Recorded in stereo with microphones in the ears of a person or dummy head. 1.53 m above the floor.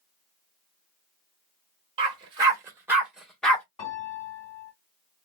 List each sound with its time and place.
2.0 s a dog barking: 30° right (ahead or behind), 1.5 m; by 3.6 s 10° left (ahead or behind), 1.1 m
3.8 s a piano: 30° left (ahead or behind), 1.9 m